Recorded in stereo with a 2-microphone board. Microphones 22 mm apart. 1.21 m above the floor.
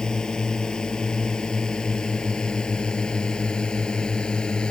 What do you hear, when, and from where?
0.0 s a drone: 35° left (ahead or behind); by 4.7 s 40° left (ahead or behind)